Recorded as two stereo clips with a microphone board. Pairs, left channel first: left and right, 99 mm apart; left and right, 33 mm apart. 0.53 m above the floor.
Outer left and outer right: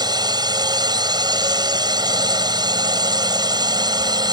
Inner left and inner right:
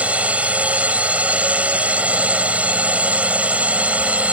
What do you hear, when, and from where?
0.0 s a drone: 45° right (ahead or behind)